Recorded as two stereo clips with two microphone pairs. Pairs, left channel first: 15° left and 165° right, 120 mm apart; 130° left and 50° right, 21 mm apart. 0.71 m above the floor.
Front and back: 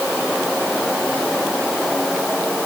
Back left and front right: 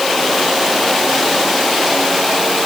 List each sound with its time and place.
Only background noise.